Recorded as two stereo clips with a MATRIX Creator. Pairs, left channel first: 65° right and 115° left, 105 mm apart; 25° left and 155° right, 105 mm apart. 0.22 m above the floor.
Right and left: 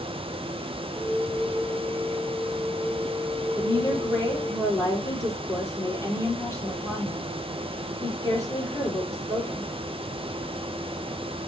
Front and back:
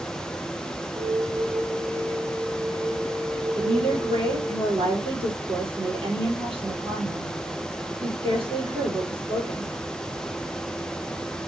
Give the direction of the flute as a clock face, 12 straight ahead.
4 o'clock.